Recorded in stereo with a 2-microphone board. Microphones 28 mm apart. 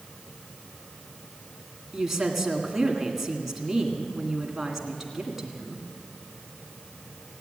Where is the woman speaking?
10° right (ahead or behind), 1.9 m.